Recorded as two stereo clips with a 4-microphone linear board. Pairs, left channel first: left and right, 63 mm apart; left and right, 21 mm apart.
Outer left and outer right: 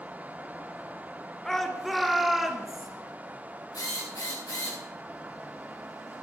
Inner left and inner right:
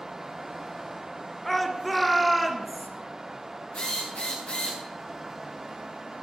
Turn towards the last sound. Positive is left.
turn(degrees=80)